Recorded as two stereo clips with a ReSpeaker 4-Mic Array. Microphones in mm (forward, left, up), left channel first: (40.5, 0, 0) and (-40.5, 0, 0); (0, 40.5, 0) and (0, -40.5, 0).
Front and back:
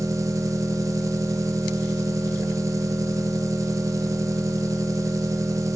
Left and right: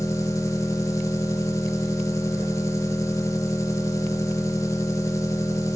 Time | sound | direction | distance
0.0 | an engine running | 135° left | 0.8 m